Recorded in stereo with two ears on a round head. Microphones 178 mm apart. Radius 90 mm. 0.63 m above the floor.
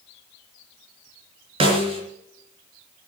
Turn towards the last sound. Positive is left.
turn(degrees=-30)  # may be behind; listen again after turning